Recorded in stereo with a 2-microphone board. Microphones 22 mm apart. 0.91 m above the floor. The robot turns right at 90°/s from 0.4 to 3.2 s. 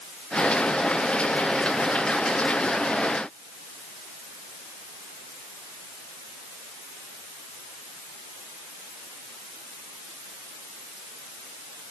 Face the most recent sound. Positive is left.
No sound to turn to.